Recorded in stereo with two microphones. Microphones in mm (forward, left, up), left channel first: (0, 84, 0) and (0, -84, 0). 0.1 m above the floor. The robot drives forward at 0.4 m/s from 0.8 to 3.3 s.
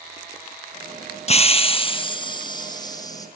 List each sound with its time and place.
1.3 s a hiss: 40° left (ahead or behind), 0.9 m; by 3.3 s 20° left (ahead or behind), 1.5 m